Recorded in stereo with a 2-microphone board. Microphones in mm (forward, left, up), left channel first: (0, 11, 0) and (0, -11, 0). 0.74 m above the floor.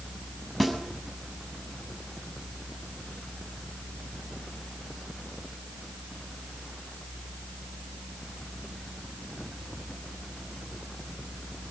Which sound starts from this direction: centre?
A snare drum, at 0.6 s.